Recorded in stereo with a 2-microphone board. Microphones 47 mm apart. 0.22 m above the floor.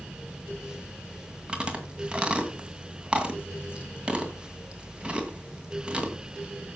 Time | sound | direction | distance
1.5 | chewing | 20° right (ahead or behind) | 2 m